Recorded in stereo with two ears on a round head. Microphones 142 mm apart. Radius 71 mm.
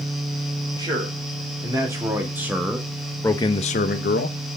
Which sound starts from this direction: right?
A man speaking, at 0.8 s.